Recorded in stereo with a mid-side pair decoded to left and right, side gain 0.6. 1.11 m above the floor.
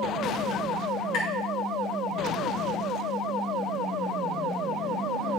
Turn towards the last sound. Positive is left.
turn(degrees=70)